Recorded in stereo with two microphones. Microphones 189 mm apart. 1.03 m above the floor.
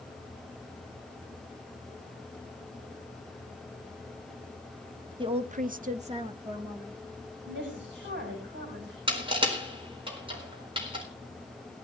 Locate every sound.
5.2 s a woman speaking: 25° right (ahead or behind), 0.8 m; by 7.0 s 20° right (ahead or behind), 1.9 m
7.5 s a woman speaking: 75° right (ahead or behind), 6.5 m
9.1 s crushing: 25° right (ahead or behind), 4 m